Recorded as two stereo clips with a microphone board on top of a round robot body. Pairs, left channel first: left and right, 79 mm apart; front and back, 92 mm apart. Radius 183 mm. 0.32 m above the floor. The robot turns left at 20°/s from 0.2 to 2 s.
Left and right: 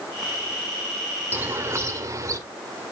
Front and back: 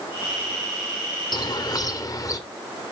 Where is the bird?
30° right, 1.9 m; by 2.4 s 45° right, 1.9 m.